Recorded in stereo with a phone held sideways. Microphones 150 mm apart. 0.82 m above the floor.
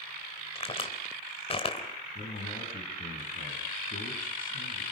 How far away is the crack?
About 3.5 m.